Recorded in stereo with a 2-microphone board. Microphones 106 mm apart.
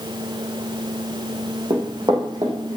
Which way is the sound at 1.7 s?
45° right (ahead or behind).